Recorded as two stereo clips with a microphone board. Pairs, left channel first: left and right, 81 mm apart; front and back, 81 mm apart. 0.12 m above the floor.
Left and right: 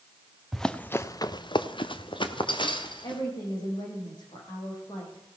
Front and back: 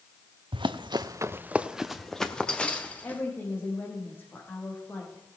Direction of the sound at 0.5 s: Straight behind.